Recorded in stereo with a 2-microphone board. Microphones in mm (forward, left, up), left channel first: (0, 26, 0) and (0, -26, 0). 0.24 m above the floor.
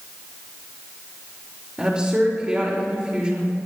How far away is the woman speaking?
About 5.5 m.